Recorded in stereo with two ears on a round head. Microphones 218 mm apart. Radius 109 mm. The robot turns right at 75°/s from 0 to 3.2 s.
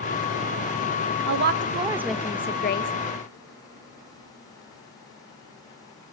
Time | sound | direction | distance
1.3 | a woman speaking | 65° right | 1.2 m